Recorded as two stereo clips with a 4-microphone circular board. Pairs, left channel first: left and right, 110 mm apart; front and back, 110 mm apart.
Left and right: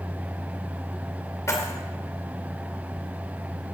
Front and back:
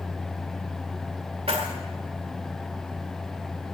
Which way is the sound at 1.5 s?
155° left.